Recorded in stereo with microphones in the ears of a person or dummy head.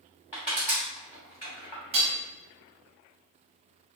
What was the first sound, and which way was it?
Crushing, 20° left (ahead or behind).